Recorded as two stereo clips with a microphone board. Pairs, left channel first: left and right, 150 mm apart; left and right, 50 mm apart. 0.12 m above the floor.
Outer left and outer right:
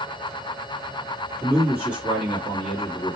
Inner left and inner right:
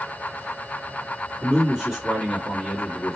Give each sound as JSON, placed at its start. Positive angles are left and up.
{"t": 1.4, "sound": "a man speaking", "side_deg": -15, "distance_m": 1.6}